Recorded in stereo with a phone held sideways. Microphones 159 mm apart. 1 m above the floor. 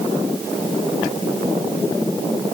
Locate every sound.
Only background noise.